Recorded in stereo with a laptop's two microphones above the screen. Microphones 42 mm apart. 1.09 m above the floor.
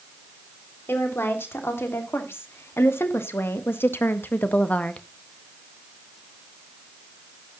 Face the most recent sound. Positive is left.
turn(degrees=30)  # may be behind; listen again after turning